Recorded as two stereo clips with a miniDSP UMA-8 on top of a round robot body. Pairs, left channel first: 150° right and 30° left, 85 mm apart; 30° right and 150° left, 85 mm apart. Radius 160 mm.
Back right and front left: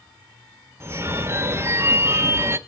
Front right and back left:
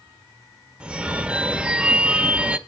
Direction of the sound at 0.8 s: 75° left.